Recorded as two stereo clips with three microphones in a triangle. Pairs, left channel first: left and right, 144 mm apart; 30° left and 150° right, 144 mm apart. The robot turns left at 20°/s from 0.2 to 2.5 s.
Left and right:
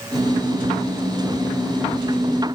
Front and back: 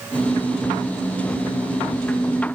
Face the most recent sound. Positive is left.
No sound to turn to.